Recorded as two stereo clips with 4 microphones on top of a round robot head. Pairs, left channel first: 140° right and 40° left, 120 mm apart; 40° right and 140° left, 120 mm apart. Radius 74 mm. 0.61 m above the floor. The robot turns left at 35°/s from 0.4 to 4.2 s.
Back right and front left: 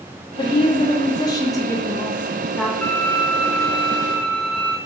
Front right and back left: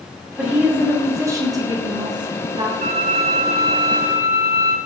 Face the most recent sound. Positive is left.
turn(degrees=85)